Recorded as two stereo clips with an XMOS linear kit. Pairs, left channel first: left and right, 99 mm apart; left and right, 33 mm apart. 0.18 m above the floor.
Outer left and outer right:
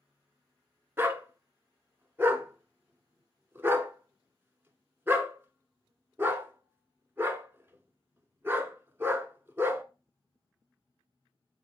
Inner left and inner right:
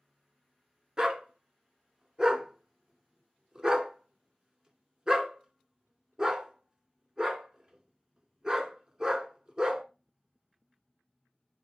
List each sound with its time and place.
1.0 s a dog barking: 20° right (ahead or behind), 0.8 m